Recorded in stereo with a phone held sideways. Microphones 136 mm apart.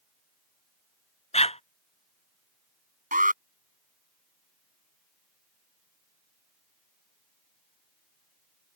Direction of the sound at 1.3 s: 50° left (ahead or behind).